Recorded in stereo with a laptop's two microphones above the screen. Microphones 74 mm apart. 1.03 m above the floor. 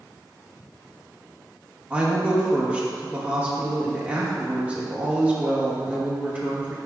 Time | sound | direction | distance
1.9 | a woman speaking | 20° right (ahead or behind) | 1.1 m